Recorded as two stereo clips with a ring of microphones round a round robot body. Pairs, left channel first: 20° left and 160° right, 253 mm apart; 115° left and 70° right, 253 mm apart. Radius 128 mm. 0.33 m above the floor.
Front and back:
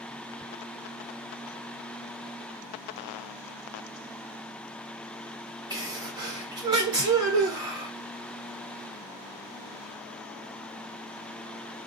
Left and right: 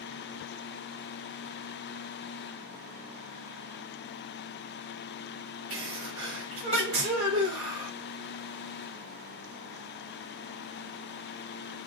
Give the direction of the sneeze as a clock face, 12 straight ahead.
3 o'clock.